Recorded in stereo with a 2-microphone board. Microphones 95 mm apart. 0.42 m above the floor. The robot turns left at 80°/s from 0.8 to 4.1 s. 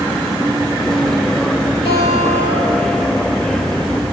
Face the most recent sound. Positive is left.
turn(degrees=-70)